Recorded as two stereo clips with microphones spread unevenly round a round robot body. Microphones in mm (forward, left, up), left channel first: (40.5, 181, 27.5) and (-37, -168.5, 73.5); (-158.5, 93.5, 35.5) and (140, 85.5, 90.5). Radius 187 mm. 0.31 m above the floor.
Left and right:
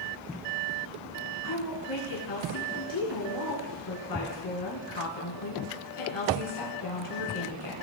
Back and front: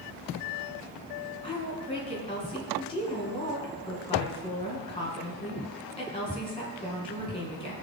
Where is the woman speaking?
110° left, 3 m.